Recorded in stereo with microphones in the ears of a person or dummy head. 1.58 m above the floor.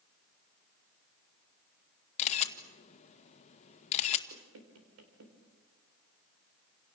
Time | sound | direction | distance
2.2 | a camera shutter | 35° left (ahead or behind) | 1.6 m
4.3 | knocking | 75° right (ahead or behind) | 3.5 m